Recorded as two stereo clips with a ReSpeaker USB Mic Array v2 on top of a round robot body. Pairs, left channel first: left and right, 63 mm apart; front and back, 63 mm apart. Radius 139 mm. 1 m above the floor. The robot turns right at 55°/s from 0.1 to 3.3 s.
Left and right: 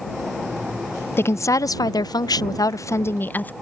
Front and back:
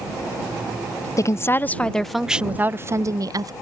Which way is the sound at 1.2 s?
35° left.